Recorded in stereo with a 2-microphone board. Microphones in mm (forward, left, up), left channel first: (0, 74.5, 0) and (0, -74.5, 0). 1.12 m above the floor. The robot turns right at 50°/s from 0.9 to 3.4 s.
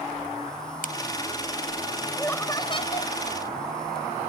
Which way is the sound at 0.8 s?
70° left (ahead or behind).